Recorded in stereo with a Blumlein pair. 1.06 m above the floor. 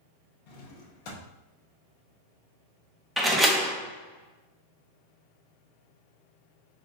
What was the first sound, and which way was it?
A drawer, 45° left.